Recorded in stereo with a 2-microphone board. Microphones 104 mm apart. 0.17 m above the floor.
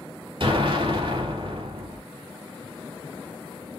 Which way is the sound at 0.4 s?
65° right (ahead or behind).